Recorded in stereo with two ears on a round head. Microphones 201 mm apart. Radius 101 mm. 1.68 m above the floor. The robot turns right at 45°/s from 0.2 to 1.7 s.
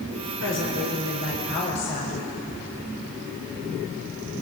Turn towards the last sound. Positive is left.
turn(degrees=130)